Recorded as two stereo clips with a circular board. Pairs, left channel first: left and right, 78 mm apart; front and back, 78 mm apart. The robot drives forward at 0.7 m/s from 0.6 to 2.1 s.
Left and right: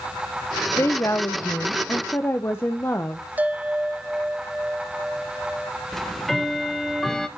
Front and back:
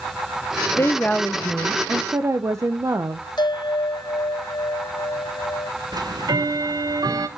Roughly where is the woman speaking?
Ahead left.